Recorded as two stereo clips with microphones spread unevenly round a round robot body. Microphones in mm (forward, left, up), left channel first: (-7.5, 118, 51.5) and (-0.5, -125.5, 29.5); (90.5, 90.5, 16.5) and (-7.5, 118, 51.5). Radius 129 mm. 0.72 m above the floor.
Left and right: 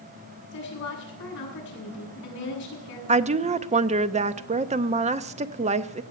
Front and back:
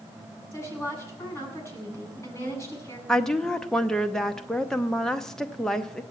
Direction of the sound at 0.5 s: 45° left.